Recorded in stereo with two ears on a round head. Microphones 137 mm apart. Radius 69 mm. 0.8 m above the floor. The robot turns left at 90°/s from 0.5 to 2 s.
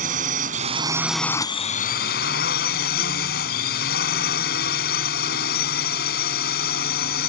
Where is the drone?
120° right; by 7.3 s 105° left.